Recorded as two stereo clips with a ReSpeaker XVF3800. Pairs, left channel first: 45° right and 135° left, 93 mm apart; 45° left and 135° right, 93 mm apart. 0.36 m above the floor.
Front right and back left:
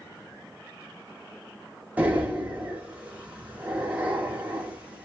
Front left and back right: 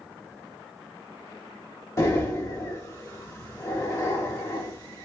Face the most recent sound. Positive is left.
turn(degrees=70)